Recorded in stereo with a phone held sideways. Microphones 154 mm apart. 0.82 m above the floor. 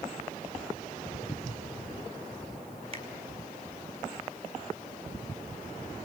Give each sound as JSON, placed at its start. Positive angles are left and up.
{"t": 2.9, "sound": "a finger snap", "side_deg": -40, "distance_m": 5.0}